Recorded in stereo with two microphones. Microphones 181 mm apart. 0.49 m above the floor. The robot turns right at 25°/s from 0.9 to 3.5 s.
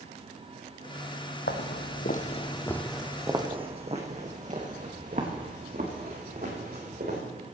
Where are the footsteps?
70° left (ahead or behind), 1.3 m; by 7.2 s 55° right (ahead or behind), 4.5 m.